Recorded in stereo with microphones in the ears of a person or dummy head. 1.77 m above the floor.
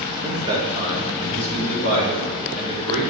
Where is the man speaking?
20° right (ahead or behind), 0.9 m; by 3.1 s 50° right (ahead or behind), 3.5 m.